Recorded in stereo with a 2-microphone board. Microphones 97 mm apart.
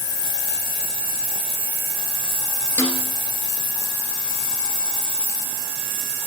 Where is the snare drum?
20° left (ahead or behind), 2.5 m.